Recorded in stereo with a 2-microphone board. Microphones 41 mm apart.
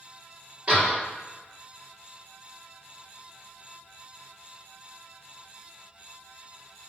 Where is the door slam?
25° right (ahead or behind), 1.6 m.